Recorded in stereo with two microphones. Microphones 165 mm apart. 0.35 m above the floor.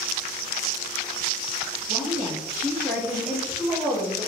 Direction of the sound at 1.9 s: 50° right (ahead or behind).